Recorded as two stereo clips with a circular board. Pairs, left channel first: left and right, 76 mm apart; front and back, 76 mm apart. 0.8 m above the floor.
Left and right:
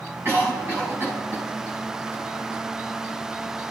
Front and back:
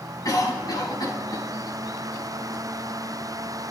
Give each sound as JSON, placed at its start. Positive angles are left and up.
{"t": 0.2, "sound": "a cough", "azimuth_deg": -35, "distance_m": 6.0}